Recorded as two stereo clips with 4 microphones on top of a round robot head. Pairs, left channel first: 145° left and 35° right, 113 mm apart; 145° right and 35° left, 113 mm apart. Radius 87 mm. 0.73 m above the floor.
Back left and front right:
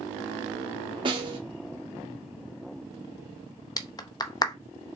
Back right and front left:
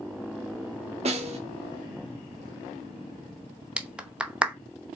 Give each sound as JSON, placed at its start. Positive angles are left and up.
{"t": 1.1, "sound": "a snare drum", "azimuth_deg": 10, "distance_m": 1.5}
{"t": 3.8, "sound": "a clap", "azimuth_deg": 110, "distance_m": 0.7}